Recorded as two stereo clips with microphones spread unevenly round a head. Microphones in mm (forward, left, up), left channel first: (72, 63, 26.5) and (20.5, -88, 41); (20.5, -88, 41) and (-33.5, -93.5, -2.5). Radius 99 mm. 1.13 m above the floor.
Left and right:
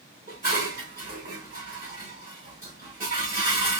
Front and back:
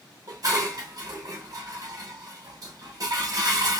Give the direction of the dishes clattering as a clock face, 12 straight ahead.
5 o'clock.